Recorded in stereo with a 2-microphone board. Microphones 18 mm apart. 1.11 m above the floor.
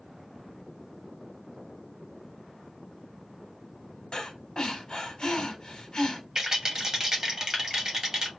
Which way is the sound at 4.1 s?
40° left (ahead or behind).